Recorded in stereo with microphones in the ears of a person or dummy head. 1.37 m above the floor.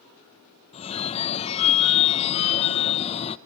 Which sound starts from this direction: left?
A phone ringing, at 0.7 s.